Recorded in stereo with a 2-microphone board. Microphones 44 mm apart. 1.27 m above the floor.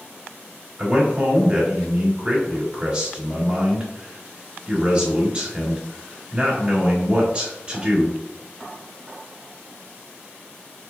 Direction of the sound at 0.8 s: 20° right (ahead or behind).